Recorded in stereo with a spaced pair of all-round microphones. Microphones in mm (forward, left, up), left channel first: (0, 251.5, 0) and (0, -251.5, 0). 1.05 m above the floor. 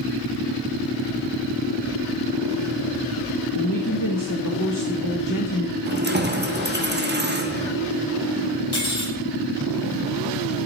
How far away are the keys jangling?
About 0.9 m.